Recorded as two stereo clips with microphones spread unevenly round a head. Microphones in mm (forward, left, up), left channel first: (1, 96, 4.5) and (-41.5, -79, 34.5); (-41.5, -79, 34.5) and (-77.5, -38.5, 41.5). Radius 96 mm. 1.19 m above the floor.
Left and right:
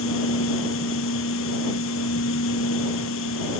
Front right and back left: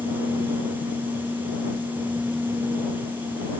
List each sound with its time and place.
0.0 s a machine running: 55° left